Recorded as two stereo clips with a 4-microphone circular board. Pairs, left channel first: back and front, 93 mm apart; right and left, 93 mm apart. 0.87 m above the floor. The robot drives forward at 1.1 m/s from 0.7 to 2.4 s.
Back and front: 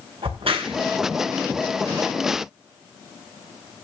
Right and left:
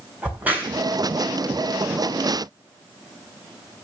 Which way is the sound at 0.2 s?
15° left.